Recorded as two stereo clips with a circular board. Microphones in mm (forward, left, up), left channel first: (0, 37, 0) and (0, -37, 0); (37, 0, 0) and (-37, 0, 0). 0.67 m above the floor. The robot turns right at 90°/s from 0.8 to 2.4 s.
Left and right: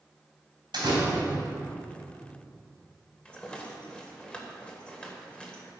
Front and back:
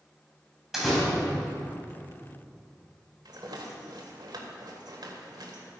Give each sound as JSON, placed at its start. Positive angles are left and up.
{"t": 0.7, "sound": "a door slam", "azimuth_deg": -95, "distance_m": 3.0}
{"t": 3.2, "sound": "a rattle", "azimuth_deg": 165, "distance_m": 1.6}